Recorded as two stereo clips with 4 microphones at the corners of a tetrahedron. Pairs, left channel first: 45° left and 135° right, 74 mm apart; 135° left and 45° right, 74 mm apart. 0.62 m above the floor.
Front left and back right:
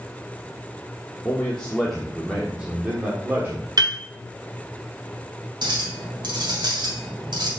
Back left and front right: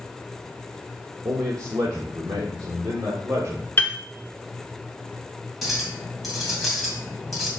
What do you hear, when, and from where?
1.2 s a man speaking: 15° right, 1.1 m; by 3.7 s 80° right, 1.5 m
3.8 s a piano: 165° right, 0.8 m
5.6 s a clink: 135° right, 2 m